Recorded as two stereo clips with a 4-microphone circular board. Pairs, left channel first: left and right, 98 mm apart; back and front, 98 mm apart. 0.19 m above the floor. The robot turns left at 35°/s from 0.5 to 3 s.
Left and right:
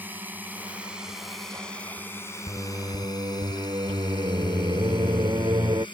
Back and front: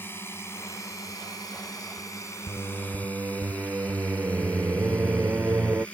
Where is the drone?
140° right; by 6.0 s 105° left.